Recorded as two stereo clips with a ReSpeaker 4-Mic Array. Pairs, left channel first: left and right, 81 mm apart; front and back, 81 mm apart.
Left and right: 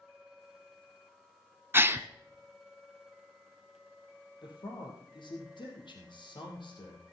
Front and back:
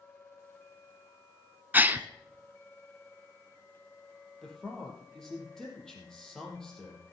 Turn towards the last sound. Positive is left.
turn(degrees=85)